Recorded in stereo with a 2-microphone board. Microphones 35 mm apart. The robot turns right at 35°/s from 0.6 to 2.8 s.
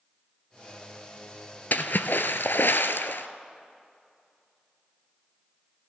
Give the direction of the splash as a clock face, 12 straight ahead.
10 o'clock.